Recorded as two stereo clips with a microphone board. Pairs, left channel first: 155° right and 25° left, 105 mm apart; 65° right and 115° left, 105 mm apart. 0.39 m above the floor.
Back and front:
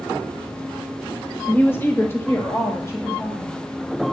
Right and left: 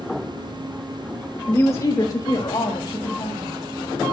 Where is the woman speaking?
100° right, 0.9 m.